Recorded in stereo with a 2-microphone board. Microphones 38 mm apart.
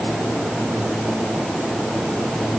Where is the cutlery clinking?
No cutlery clinking in this recording.